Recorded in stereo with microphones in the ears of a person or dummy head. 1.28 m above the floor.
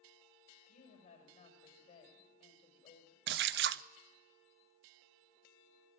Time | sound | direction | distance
0.7 | a woman speaking | 45° left (ahead or behind) | 5.5 m
3.3 | a splash | 55° right (ahead or behind) | 0.6 m